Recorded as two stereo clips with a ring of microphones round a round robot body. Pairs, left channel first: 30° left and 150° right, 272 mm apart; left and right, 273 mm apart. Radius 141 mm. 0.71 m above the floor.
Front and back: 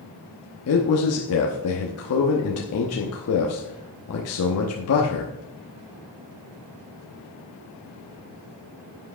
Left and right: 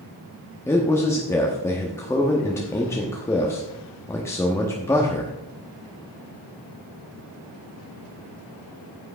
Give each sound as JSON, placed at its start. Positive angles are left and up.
{"t": 0.7, "sound": "a man speaking", "azimuth_deg": 10, "distance_m": 1.0}